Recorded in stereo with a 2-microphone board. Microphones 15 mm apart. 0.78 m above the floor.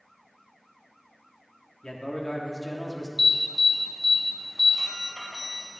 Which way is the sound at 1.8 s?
40° left (ahead or behind).